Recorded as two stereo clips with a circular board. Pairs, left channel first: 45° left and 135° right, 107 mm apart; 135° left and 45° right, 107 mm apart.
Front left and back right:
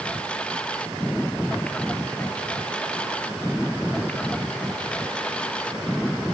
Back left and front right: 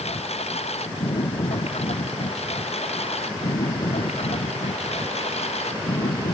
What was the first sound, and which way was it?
A lawn mower, 125° left.